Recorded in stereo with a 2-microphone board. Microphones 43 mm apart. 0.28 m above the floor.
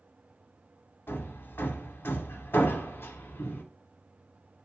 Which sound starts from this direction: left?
Hammering, at 1.1 s.